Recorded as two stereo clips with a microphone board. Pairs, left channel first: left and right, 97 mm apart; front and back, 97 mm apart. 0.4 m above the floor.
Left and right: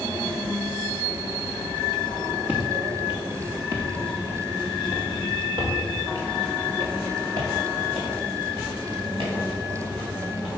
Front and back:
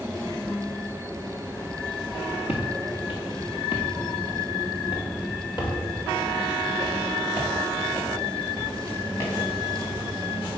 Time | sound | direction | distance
2.5 | footsteps | 20° right | 2 m